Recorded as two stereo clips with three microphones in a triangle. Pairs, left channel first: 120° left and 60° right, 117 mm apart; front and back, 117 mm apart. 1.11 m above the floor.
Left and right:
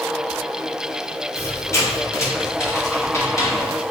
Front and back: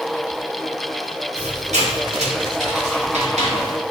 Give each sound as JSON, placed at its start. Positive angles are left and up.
{"t": 1.4, "sound": "a squeak", "azimuth_deg": -175, "distance_m": 0.7}